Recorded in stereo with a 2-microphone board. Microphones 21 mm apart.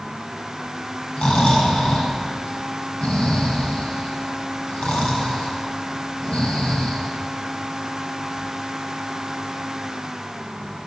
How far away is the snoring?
About 5 m.